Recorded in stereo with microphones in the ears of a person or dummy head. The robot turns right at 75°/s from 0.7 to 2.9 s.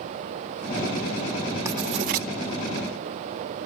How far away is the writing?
About 1.6 m.